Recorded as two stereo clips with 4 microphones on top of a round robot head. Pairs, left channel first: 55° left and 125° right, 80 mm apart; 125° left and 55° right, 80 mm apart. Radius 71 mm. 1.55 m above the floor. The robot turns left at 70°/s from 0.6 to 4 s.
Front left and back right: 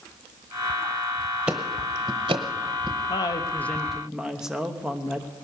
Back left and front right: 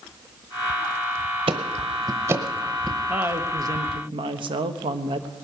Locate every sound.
1.5 s ticking: 45° right, 0.8 m; by 3.0 s 150° right, 0.8 m
3.1 s a woman speaking: 20° left, 1.1 m; by 5.3 s 45° right, 1.1 m